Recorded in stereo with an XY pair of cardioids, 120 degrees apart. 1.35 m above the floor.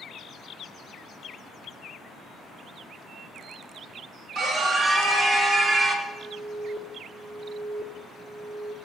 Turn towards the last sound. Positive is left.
turn(degrees=-25)